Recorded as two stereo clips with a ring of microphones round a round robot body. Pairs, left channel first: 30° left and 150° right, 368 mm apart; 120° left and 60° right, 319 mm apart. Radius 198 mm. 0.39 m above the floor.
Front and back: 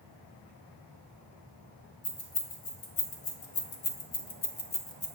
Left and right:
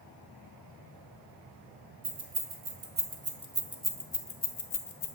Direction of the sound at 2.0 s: 20° right.